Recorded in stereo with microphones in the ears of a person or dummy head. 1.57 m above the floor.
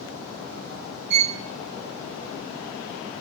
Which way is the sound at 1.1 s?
55° right (ahead or behind).